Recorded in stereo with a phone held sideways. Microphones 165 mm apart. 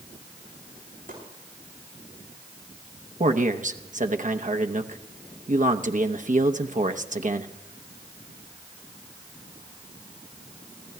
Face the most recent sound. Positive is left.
turn(degrees=-50)  # may be behind; listen again after turning